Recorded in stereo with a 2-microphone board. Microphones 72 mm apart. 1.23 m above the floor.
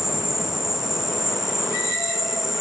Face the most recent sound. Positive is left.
turn(degrees=-5)  # may be behind; listen again after turning